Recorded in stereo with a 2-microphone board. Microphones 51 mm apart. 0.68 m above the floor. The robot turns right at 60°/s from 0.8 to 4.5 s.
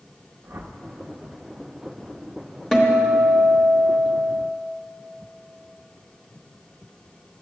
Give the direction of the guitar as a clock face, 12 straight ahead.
6 o'clock.